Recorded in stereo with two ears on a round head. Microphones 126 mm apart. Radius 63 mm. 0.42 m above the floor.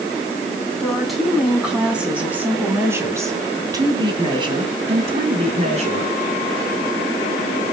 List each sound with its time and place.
0.8 s a woman speaking: centre (ahead or behind), 3.5 m; by 6.1 s 50° right (ahead or behind), 3.5 m